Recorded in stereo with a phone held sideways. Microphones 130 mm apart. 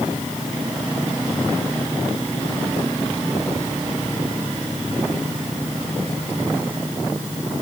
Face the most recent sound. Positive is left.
No sound to turn to.